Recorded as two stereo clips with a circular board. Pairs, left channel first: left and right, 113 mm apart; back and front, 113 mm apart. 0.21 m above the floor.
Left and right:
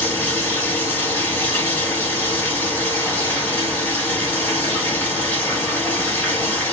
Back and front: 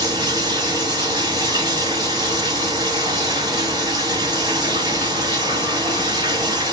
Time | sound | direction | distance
0.0 | running water | 25° left | 1.4 m